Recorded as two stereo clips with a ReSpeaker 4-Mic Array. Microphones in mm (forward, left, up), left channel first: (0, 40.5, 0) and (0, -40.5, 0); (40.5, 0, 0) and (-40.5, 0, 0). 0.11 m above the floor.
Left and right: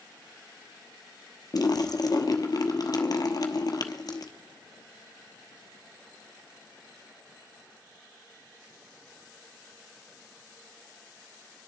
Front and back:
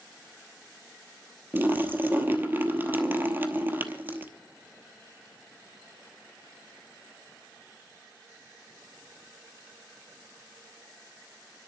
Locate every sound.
1.5 s a splash: 120° left, 1.0 m